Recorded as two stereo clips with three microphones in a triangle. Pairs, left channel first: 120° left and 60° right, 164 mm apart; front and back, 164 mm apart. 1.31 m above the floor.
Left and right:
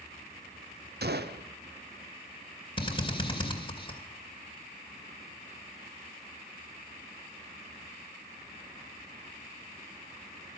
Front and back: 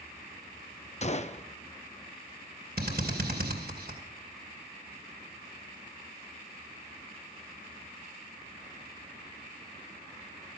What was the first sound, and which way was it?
A gunshot, 50° right.